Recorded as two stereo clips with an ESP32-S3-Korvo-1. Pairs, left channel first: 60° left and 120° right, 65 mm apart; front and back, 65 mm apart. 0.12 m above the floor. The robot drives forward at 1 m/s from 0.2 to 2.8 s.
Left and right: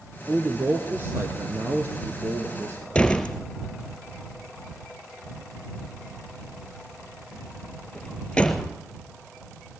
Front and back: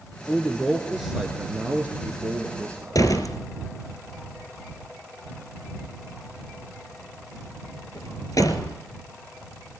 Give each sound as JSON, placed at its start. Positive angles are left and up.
{"t": 0.3, "sound": "a man speaking", "azimuth_deg": -70, "distance_m": 2.0}
{"t": 3.0, "sound": "a door slam", "azimuth_deg": -10, "distance_m": 2.0}